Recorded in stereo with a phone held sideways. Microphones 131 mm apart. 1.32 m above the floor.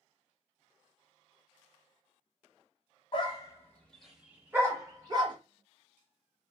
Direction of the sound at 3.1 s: 35° left (ahead or behind).